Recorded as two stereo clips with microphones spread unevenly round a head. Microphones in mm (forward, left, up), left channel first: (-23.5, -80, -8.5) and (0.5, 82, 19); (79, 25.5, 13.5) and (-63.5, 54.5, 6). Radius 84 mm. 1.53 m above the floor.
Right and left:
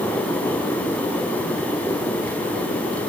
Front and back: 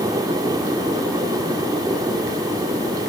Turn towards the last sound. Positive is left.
No sound to turn to.